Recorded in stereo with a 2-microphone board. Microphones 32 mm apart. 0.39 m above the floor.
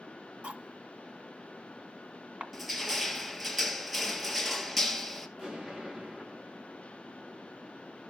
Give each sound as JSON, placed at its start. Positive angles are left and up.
{"t": 0.4, "sound": "cutlery clinking", "side_deg": -45, "distance_m": 1.9}
{"t": 2.5, "sound": "crushing", "side_deg": 0, "distance_m": 2.5}
{"t": 5.4, "sound": "an explosion", "side_deg": -30, "distance_m": 9.0}